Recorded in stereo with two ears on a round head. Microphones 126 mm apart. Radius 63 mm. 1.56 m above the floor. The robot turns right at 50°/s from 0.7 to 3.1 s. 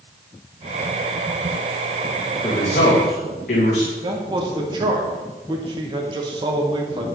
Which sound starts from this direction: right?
A man speaking, at 4.0 s.